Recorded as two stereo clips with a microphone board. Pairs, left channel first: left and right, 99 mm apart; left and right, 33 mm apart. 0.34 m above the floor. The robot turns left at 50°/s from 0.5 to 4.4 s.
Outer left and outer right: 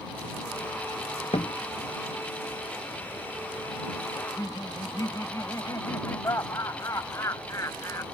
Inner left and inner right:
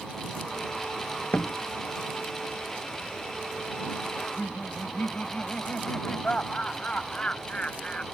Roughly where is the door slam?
Left.